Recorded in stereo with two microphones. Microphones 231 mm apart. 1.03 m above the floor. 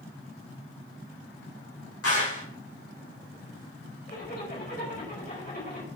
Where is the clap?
85° left, 6 m.